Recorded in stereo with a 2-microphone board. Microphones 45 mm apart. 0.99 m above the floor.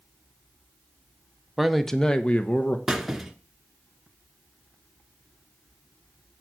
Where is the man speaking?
5° right (ahead or behind), 0.8 m; by 2.8 s 40° left (ahead or behind), 1.0 m.